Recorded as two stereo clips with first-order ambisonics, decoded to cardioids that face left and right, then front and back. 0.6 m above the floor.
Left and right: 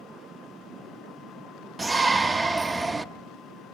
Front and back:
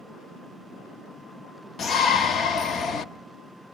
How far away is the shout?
About 0.6 m.